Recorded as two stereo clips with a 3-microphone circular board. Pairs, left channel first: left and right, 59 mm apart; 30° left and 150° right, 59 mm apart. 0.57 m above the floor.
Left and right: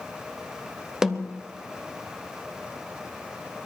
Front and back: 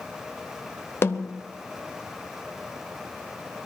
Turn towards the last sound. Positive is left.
turn(degrees=-10)